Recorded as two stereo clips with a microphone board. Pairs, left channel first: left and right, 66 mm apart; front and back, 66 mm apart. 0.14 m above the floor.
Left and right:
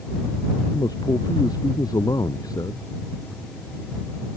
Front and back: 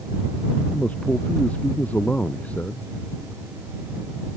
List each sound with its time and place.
0.7 s a man speaking: 70° left